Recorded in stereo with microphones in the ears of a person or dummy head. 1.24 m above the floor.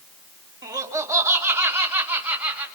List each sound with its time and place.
0.6 s laughter: 20° right (ahead or behind), 2.5 m; by 2.7 s 10° right (ahead or behind), 4.5 m